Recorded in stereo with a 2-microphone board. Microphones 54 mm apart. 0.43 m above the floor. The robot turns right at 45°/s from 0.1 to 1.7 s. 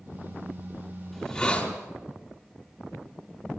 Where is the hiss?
Centre (ahead or behind), 4.5 m; by 1.7 s 25° left (ahead or behind), 4.5 m.